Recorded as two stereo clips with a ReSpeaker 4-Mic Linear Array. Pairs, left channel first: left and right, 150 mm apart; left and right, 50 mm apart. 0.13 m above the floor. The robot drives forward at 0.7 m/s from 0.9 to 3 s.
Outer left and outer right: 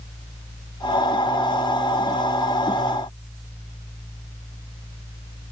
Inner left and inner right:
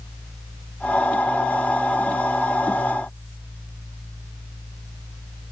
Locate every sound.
Only background noise.